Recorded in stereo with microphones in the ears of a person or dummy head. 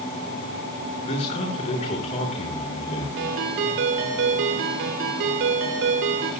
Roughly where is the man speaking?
Left.